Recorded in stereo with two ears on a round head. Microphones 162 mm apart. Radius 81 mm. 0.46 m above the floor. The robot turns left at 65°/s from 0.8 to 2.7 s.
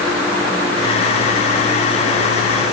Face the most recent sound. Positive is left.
No sound to turn to.